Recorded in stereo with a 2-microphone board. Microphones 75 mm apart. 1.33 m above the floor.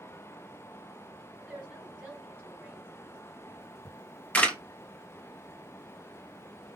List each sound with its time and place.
1.4 s a woman speaking: 20° right (ahead or behind), 5 m; by 3.4 s 30° right (ahead or behind), 5.5 m
3.9 s a camera shutter: 20° left (ahead or behind), 1.2 m